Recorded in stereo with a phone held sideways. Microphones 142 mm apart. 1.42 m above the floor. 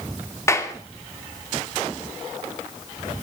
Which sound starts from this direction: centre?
A clap, at 0.5 s.